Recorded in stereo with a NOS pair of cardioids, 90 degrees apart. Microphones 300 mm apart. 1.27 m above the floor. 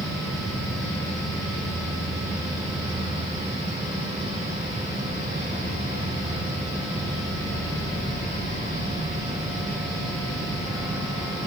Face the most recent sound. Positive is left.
turn(degrees=-10)